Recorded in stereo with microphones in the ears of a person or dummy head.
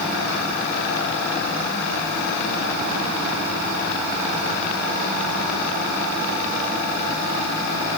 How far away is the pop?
I don't hear a pop.